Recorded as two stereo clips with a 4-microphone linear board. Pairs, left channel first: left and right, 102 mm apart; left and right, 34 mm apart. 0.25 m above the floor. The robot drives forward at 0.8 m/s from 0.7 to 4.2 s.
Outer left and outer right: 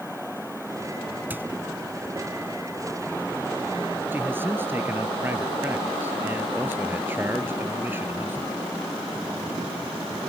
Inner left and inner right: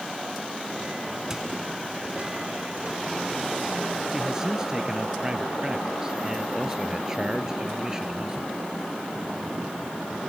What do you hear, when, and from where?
1.3 s a squeak: 20° right (ahead or behind)
4.1 s a man speaking: 20° right (ahead or behind)